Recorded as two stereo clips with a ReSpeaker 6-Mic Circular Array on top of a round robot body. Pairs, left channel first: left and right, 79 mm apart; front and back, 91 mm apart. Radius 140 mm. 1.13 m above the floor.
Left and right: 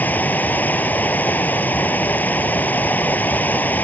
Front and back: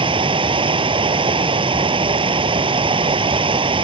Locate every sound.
0.0 s running water: 160° left